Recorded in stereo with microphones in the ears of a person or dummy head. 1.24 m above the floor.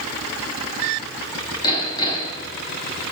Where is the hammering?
25° left (ahead or behind), 7.5 m.